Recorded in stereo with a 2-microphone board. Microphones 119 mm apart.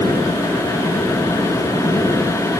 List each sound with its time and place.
Only background noise.